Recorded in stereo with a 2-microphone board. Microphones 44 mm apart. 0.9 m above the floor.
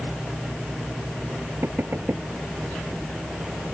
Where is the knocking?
60° right (ahead or behind).